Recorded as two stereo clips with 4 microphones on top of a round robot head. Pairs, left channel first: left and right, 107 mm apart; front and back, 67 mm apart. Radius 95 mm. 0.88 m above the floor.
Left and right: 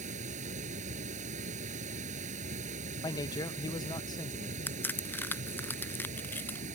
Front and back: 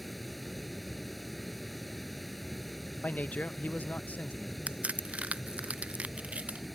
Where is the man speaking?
55° left.